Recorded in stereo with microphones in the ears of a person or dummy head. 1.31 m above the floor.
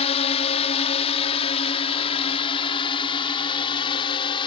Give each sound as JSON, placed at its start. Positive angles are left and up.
{"t": 0.0, "sound": "a drone", "side_deg": 40}